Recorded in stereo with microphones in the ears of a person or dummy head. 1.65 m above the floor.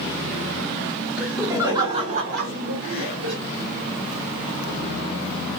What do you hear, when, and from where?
1.2 s laughter: 5° right (ahead or behind), 1.3 m; by 3.4 s 75° right (ahead or behind), 1.2 m